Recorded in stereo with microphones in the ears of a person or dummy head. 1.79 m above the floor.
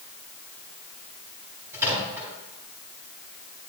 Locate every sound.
1.7 s a microwave: 15° right (ahead or behind), 6 m